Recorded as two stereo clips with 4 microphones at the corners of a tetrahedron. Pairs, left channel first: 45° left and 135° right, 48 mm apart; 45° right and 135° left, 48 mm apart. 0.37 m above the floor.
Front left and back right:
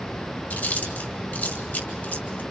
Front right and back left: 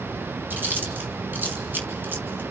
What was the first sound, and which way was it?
Chewing, 95° left.